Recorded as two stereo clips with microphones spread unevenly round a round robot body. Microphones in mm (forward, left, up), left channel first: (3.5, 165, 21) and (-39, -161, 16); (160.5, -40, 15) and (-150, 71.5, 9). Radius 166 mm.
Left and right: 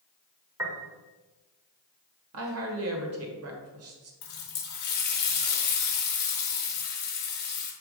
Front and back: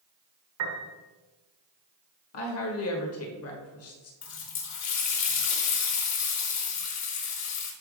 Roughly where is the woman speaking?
Ahead right.